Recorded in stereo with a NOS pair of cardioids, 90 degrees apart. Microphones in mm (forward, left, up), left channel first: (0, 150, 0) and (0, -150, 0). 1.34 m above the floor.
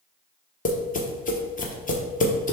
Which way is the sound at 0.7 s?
25° left.